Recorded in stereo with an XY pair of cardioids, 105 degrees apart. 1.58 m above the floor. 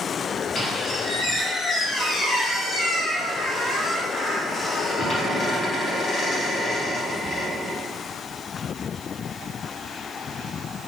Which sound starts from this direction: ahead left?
A squeak, at 0.6 s.